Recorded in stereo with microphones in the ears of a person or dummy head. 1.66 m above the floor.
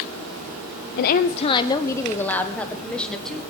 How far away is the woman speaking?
About 0.5 m.